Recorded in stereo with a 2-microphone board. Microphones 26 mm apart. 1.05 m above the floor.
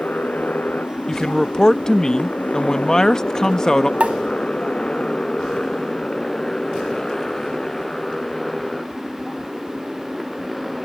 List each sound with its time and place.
0.0 s a motorcycle: 90° left; by 10.9 s 5° left (ahead or behind)
1.1 s a man speaking: 25° left (ahead or behind)
4.0 s a pop: 55° right (ahead or behind)